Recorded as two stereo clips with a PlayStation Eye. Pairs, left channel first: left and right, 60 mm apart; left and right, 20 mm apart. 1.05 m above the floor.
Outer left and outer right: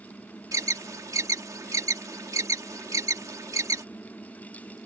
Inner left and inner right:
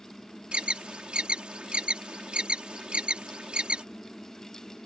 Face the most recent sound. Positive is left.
turn(degrees=-70)  # may be behind; listen again after turning